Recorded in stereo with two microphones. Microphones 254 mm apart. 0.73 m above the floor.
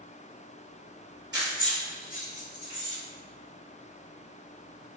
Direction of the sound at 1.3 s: 40° right (ahead or behind).